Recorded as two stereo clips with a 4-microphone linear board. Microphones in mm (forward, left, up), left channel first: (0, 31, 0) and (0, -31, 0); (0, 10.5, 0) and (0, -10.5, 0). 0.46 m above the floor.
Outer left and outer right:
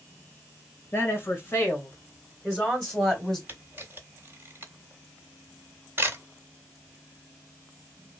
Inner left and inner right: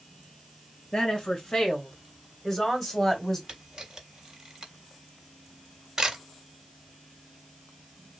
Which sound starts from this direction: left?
A woman speaking, at 0.9 s.